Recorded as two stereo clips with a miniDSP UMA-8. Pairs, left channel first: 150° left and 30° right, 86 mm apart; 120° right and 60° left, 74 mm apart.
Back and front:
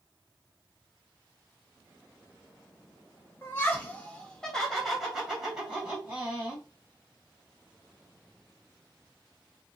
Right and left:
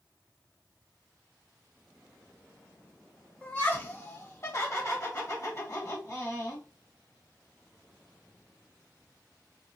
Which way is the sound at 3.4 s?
170° right.